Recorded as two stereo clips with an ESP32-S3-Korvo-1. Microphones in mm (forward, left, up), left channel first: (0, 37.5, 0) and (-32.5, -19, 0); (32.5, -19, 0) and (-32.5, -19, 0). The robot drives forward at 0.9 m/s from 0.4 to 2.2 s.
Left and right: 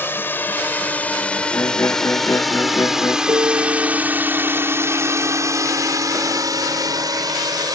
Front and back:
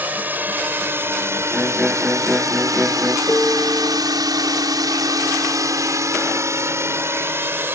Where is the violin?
105° left.